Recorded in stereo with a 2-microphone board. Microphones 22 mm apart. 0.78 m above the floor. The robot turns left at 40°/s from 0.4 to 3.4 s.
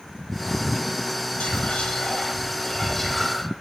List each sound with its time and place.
1.4 s whispering: 70° left, 2.5 m; by 3.4 s 10° right, 2.5 m